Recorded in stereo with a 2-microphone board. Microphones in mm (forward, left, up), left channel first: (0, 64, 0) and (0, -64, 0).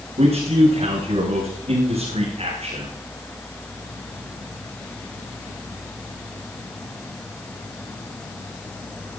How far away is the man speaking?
About 8.5 m.